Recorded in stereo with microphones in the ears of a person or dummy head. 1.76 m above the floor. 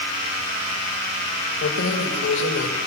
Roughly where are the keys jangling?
Left.